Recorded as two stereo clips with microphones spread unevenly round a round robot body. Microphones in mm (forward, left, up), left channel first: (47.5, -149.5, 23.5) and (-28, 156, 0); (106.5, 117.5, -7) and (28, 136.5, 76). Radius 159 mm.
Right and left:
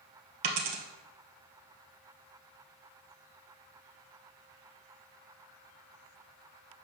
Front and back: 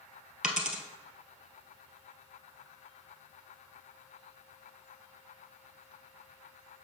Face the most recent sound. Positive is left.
turn(degrees=105)